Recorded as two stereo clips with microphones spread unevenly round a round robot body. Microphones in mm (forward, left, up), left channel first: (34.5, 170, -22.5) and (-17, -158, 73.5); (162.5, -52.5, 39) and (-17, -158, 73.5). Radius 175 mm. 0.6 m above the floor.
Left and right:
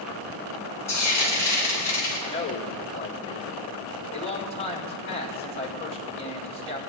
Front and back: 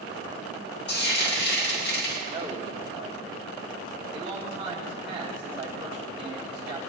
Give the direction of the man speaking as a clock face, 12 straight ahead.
7 o'clock.